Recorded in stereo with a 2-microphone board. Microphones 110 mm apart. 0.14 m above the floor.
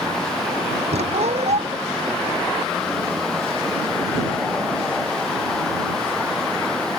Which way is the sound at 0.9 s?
80° right.